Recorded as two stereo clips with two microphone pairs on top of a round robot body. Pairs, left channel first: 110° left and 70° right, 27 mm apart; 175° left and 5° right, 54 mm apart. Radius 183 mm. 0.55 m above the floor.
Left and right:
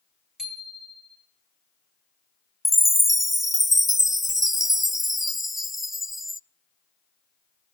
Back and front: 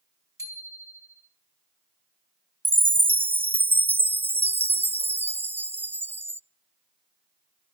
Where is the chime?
10° left, 0.6 m.